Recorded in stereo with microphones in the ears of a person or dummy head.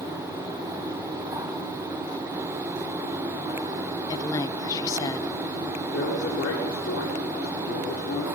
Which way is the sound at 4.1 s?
20° left (ahead or behind).